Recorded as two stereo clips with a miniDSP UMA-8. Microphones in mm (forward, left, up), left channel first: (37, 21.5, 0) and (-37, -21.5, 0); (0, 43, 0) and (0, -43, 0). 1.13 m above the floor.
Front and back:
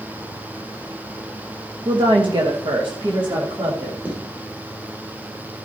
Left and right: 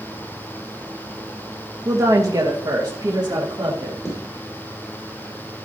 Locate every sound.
1.9 s a woman speaking: 140° right, 1.1 m; by 4.0 s 125° right, 2 m
4.0 s footsteps: 135° left, 4.5 m